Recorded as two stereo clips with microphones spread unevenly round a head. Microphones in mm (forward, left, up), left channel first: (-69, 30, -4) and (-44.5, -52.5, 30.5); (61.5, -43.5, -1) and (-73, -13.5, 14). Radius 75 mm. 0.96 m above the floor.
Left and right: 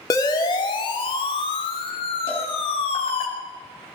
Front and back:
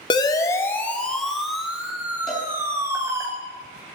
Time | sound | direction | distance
0.1 | a siren | 50° left | 2 m
2.3 | a cowbell | 75° left | 6 m